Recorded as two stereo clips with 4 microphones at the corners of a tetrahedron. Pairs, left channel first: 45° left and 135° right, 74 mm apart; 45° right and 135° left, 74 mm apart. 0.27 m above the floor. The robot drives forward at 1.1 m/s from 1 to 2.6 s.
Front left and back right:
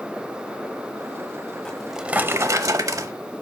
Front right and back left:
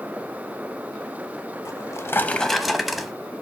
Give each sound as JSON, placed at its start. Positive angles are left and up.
{"t": 1.6, "sound": "a drawer", "azimuth_deg": -30, "distance_m": 0.9}